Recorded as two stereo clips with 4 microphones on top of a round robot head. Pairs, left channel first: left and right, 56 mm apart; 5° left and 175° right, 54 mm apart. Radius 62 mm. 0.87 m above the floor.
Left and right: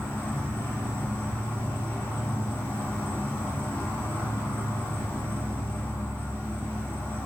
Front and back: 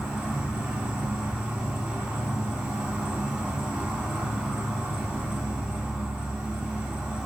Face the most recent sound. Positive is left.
turn(degrees=135)